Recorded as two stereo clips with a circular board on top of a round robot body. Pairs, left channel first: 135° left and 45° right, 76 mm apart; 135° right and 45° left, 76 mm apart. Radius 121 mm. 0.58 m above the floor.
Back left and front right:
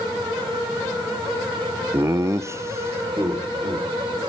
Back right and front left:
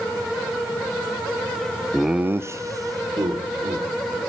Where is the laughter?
65° right, 0.6 m; by 4.2 s 10° left, 3.5 m.